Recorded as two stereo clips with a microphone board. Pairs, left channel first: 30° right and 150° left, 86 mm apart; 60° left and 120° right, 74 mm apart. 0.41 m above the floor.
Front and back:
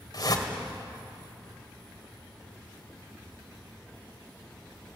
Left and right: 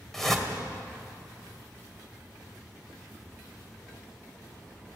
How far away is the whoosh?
About 2 m.